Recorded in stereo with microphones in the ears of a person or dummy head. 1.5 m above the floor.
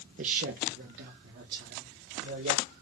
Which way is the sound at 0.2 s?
40° right (ahead or behind).